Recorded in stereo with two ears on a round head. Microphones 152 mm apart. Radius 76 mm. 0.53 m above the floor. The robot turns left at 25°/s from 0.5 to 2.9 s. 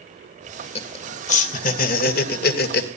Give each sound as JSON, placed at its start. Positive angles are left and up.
{"t": 0.8, "sound": "laughter", "side_deg": 35, "distance_m": 2.0}